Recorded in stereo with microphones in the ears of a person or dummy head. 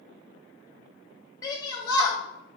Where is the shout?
15° left (ahead or behind), 1.9 m.